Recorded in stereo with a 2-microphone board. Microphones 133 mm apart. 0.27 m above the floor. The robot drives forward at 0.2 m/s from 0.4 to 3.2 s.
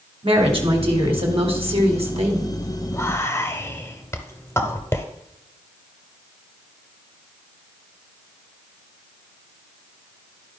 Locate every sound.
0.2 s a woman speaking: 45° right (ahead or behind), 1.7 m; by 2.5 s 55° right (ahead or behind), 1.5 m
2.9 s whispering: 20° left (ahead or behind), 0.9 m